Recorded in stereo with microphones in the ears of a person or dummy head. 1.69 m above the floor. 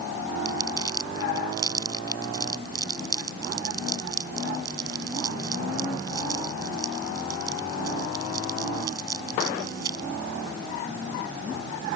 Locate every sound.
0.5 s crumpling: 25° right (ahead or behind)